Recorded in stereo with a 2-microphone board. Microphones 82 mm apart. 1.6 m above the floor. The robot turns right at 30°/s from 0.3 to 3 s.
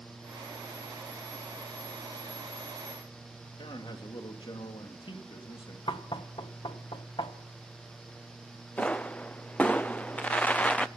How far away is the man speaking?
About 2.5 m.